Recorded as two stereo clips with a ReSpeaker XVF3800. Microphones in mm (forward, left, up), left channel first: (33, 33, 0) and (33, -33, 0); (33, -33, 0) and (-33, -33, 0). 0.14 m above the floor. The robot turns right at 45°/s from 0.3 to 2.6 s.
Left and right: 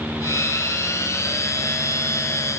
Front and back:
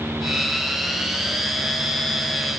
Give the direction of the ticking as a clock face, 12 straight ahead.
I don't hear ticking.